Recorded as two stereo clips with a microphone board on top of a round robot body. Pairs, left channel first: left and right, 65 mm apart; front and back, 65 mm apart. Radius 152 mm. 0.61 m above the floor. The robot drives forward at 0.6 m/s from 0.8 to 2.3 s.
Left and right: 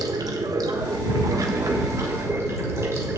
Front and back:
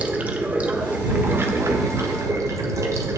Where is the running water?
110° right, 1.2 m; by 3.2 s 140° right, 1.7 m.